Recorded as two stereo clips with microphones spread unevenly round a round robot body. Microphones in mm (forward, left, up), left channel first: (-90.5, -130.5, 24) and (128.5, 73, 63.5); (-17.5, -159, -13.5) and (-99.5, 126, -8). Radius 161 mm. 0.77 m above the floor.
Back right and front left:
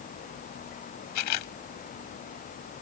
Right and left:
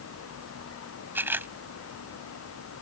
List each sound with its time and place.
1.1 s a camera shutter: 170° right